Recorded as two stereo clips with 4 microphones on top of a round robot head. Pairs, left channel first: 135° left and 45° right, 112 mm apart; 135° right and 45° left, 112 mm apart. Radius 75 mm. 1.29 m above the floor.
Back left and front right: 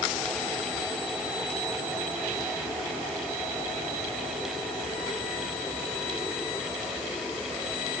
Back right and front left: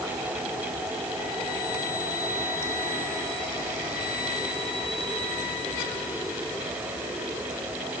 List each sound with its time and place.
Only background noise.